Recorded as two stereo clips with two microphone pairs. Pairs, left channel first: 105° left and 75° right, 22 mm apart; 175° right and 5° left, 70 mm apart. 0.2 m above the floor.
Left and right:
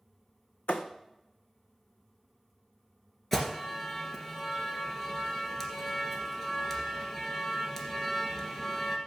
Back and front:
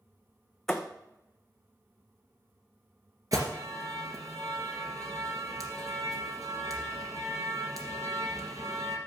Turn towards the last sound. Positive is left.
turn(degrees=35)